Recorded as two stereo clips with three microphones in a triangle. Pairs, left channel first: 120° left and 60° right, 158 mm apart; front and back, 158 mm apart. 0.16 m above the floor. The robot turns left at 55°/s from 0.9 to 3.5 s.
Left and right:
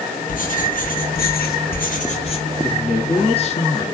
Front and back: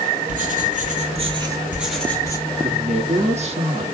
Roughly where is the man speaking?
Behind.